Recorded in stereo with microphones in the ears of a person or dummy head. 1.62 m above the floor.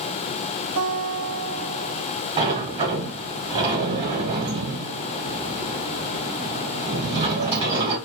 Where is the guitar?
45° right (ahead or behind), 0.7 m.